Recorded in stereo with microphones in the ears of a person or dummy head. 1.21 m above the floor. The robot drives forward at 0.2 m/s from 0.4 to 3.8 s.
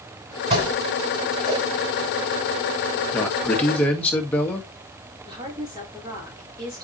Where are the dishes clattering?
35° right (ahead or behind), 6 m; by 1.7 s 30° right (ahead or behind), 6.5 m.